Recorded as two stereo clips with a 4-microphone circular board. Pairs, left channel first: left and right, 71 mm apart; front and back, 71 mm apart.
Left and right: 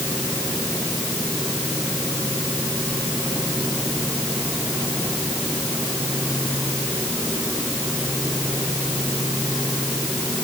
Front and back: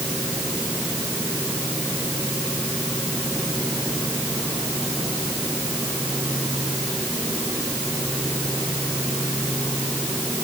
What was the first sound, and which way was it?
Only background noise.